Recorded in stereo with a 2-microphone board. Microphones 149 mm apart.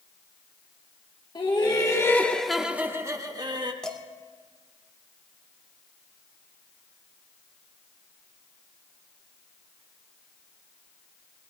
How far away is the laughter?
About 1.2 m.